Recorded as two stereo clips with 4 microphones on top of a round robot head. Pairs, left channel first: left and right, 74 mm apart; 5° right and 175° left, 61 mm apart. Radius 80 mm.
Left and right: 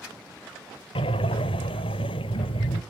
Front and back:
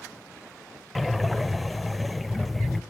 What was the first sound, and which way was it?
Breathing, 85° left.